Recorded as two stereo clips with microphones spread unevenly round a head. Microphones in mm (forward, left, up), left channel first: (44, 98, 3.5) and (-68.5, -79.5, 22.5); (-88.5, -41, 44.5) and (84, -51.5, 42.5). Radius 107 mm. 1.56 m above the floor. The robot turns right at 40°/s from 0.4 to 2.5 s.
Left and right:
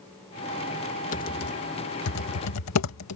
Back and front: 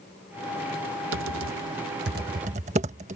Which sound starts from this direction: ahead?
Typing on a keyboard, at 1.1 s.